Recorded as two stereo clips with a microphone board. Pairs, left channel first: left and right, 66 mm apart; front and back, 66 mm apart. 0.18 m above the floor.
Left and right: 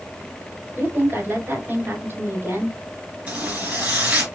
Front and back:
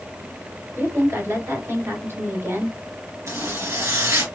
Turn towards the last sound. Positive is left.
turn(degrees=-155)